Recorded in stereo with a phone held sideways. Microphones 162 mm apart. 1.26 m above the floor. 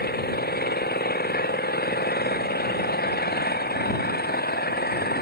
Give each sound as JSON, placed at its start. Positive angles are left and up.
{"t": 0.0, "sound": "an engine running", "side_deg": 75}